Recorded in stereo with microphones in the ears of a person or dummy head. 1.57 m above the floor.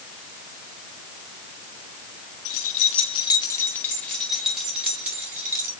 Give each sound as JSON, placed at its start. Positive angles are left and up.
{"t": 2.5, "sound": "keys jangling", "side_deg": 55, "distance_m": 1.7}